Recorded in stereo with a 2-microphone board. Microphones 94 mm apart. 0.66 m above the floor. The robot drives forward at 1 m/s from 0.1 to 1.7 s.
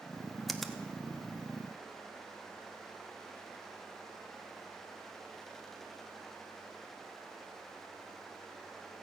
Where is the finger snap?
Centre (ahead or behind), 1.0 m.